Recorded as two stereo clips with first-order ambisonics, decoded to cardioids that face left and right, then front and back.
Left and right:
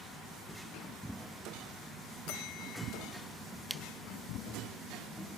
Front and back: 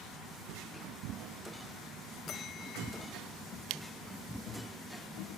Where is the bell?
60° left.